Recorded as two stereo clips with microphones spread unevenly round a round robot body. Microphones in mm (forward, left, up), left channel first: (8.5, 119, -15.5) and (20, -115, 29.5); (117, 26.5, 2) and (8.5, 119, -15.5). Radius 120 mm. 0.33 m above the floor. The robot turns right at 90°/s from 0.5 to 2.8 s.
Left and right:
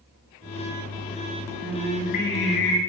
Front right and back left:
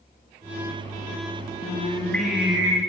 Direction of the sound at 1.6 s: 5° right.